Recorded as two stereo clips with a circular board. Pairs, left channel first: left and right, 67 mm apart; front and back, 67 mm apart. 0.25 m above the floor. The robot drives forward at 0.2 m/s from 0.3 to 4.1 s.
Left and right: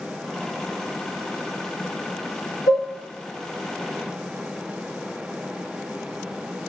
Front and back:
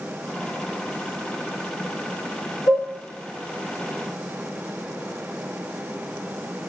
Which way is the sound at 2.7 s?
125° right.